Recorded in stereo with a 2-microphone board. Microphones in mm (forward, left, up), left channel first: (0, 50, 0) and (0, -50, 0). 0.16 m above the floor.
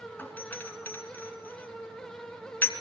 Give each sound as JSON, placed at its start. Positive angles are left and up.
{"t": 0.2, "sound": "a doorbell", "side_deg": 20, "distance_m": 3.0}